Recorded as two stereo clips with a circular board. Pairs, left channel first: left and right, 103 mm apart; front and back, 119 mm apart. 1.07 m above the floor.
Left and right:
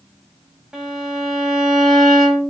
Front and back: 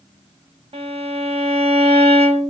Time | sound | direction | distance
0.7 | a violin | 170° right | 0.6 m